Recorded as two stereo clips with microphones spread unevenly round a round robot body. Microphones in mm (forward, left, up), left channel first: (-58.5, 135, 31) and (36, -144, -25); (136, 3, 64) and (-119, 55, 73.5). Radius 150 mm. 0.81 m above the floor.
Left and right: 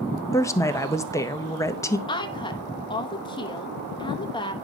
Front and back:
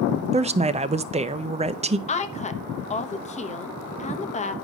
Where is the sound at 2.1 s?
30° left, 1.0 m.